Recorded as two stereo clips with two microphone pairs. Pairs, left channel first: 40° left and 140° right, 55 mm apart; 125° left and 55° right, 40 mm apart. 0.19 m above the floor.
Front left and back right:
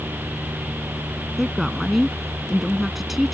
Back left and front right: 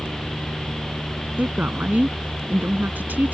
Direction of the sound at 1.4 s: 50° right.